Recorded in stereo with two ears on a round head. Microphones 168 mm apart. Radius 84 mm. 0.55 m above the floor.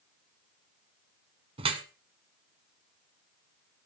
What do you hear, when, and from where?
1.6 s dripping: 30° right (ahead or behind), 1.3 m